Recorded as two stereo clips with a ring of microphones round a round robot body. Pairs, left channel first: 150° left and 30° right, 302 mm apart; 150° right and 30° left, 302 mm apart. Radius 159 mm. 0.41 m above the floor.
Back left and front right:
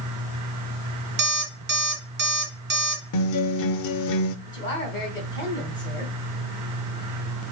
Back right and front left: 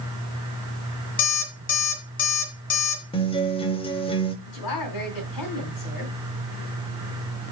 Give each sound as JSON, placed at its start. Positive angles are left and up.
{"t": 1.2, "sound": "an alarm clock", "azimuth_deg": -85, "distance_m": 2.0}
{"t": 3.1, "sound": "a guitar", "azimuth_deg": 140, "distance_m": 0.7}
{"t": 4.5, "sound": "a woman speaking", "azimuth_deg": -135, "distance_m": 2.5}